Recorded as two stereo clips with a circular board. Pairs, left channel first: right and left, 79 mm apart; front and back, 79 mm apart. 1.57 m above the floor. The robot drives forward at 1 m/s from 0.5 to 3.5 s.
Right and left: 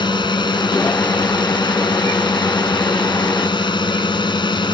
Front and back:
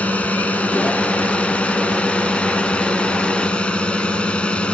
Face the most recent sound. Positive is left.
turn(degrees=-75)